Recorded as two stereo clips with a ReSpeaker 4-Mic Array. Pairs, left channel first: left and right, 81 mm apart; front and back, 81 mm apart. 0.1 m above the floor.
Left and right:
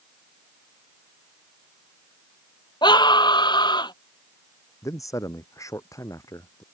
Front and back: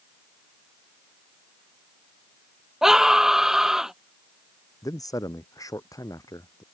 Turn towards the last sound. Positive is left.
turn(degrees=40)